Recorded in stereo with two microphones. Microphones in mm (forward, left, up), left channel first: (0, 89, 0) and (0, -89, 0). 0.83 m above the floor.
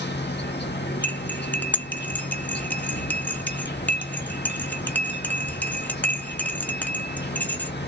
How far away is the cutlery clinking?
About 0.7 m.